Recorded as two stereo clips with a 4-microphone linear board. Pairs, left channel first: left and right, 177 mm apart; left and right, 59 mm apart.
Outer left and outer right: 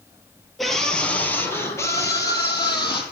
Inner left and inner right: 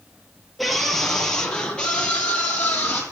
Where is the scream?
Centre (ahead or behind), 3 m; by 3.0 s 25° left (ahead or behind), 5 m.